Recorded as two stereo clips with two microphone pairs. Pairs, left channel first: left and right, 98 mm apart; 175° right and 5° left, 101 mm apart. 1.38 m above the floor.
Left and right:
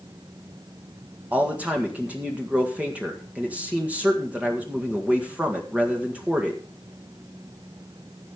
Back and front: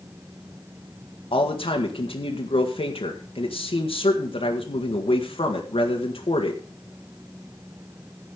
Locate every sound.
1.3 s a man speaking: 165° right, 1.7 m